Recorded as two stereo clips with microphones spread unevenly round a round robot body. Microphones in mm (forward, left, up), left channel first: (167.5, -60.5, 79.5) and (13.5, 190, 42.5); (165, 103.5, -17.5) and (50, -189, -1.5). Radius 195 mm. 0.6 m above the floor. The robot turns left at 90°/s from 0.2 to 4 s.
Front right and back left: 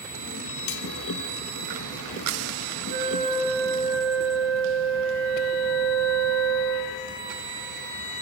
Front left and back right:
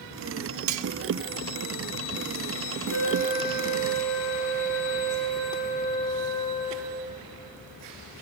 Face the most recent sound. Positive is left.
turn(degrees=35)